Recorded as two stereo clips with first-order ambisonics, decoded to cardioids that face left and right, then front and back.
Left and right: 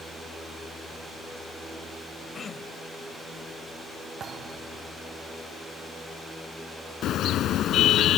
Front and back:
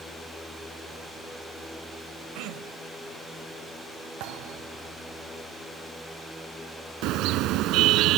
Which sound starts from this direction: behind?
Throat clearing, at 2.4 s.